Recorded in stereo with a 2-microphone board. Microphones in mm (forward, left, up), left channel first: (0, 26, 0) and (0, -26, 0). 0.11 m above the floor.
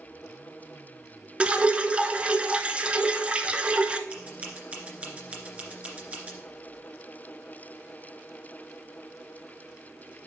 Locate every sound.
1.4 s dripping: 25° right (ahead or behind), 0.5 m
4.1 s scissors: 25° right (ahead or behind), 2 m